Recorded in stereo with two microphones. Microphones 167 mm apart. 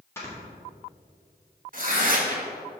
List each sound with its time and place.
0.2 s snoring: 15° left (ahead or behind), 1.8 m
1.7 s tearing paper: 55° right (ahead or behind), 1.2 m